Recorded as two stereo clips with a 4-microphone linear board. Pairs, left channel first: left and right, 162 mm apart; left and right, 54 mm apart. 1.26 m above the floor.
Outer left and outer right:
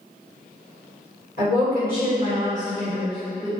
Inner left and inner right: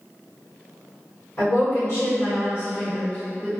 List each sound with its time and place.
1.4 s a woman speaking: 75° left (ahead or behind), 1.7 m; by 3.5 s centre (ahead or behind), 0.6 m